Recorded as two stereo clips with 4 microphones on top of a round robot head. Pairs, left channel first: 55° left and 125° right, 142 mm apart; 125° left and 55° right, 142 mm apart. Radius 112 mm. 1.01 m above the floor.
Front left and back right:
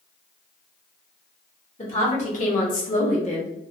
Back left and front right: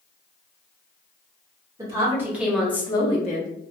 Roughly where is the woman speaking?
Ahead.